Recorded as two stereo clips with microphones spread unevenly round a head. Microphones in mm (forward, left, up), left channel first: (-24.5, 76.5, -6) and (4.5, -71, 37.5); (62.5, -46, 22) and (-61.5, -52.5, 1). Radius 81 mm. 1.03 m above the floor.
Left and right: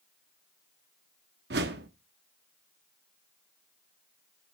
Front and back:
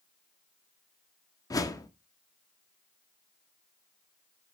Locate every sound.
1.5 s a whoosh: 60° right, 1.2 m